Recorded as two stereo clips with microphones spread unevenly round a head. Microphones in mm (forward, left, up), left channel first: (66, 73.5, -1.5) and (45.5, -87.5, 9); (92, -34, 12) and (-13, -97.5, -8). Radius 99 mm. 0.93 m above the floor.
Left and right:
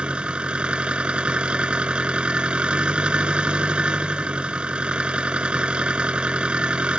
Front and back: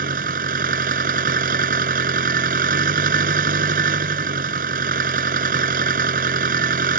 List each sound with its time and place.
0.0 s an engine running: 175° left